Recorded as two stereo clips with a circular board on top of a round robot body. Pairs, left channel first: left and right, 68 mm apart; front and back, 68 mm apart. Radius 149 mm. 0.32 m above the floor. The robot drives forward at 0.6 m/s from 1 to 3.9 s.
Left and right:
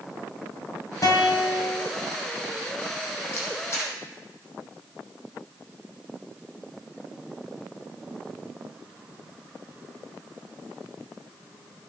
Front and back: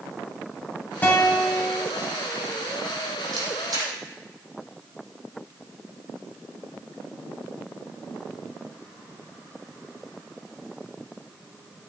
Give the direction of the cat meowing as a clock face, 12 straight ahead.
No cat meowing in this recording.